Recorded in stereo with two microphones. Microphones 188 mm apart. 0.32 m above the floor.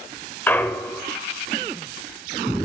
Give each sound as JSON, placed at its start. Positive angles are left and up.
{"t": 0.5, "sound": "a clunk", "side_deg": 10, "distance_m": 0.5}